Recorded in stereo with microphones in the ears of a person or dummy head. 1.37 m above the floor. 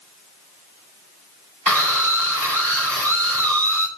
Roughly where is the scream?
Centre.